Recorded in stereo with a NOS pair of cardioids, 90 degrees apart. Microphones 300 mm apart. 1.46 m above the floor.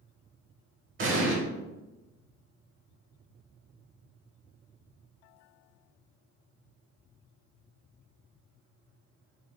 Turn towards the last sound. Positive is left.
turn(degrees=-40)